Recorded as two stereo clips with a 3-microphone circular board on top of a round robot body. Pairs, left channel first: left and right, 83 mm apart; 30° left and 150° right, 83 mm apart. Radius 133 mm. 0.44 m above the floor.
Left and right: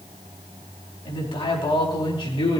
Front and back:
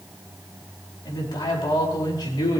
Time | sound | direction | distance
1.1 | a man speaking | 75° left | 4 m